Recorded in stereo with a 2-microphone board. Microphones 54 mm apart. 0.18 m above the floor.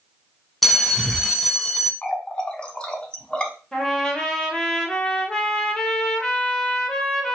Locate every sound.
0.6 s a bell: centre (ahead or behind), 0.6 m
2.0 s a running tap: 20° left (ahead or behind), 0.8 m
3.7 s a trumpet: 15° left (ahead or behind), 1.1 m